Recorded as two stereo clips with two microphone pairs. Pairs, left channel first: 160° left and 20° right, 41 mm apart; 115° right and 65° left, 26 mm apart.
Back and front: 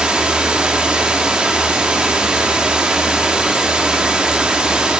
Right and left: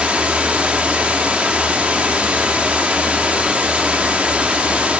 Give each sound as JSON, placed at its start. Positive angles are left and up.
{"t": 0.0, "sound": "running water", "azimuth_deg": 45, "distance_m": 0.9}